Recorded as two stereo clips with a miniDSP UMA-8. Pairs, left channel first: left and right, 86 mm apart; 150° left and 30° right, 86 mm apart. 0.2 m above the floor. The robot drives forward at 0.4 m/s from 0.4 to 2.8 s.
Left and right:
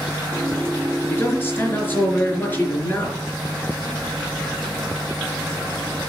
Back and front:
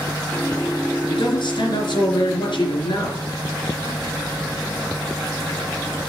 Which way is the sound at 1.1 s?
150° left.